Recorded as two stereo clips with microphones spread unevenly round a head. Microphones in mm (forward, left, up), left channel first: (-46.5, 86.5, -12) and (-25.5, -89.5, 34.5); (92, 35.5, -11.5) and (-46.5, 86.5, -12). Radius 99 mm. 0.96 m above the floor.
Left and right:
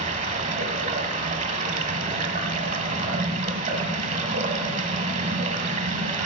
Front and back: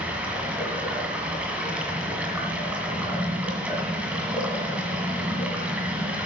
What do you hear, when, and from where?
0.0 s running water: 120° right, 1.7 m